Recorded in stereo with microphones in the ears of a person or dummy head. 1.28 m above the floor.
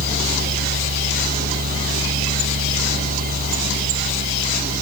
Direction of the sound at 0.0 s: 45° right (ahead or behind).